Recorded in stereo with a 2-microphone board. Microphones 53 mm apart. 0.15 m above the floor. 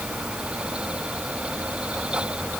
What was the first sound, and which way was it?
Only background noise.